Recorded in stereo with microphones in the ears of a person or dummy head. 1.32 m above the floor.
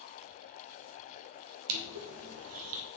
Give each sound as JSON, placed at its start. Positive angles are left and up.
{"t": 1.7, "sound": "crushing", "side_deg": -70, "distance_m": 1.0}